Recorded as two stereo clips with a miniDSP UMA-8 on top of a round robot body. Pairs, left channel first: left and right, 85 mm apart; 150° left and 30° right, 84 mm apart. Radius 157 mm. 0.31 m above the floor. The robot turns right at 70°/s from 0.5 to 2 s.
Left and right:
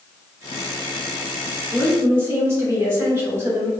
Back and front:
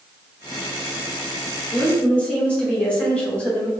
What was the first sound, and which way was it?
A woman speaking, 160° right.